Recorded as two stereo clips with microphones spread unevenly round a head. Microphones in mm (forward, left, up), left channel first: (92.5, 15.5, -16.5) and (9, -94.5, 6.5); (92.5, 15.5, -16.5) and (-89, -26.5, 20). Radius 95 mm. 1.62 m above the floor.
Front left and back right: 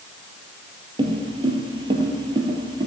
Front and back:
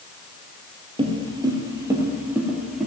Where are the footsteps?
135° right, 2 m; by 2.9 s 90° right, 2 m.